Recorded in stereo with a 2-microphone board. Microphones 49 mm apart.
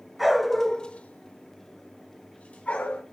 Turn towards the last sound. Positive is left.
turn(degrees=30)  # may be behind; listen again after turning